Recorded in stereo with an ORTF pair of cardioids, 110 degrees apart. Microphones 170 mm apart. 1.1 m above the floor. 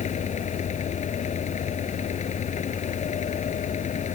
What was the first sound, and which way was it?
A fan, 45° left.